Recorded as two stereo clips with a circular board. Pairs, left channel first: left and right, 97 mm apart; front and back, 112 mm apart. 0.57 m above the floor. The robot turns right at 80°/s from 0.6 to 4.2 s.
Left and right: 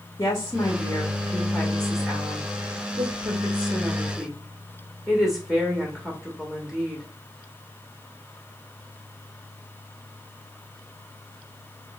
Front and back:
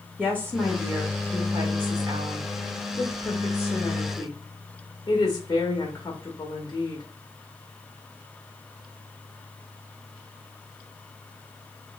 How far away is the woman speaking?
About 0.8 m.